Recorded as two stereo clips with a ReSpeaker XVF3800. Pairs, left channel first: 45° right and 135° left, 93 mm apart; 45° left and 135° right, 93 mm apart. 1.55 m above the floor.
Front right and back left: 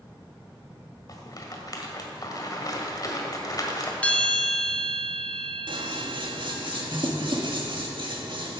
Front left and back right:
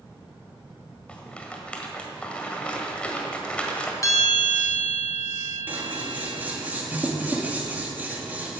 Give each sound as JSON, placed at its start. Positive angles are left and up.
{"t": 1.1, "sound": "a rattle", "azimuth_deg": -25, "distance_m": 1.7}
{"t": 4.0, "sound": "a bell", "azimuth_deg": 20, "distance_m": 1.5}
{"t": 5.7, "sound": "scissors", "azimuth_deg": 155, "distance_m": 1.6}